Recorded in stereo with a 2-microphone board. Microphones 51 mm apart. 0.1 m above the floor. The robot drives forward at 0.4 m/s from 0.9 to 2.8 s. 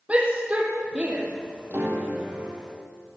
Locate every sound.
0.1 s a shout: 25° right (ahead or behind), 3 m
1.7 s a piano: 50° right (ahead or behind), 3 m; by 2.7 s 45° right (ahead or behind), 3.5 m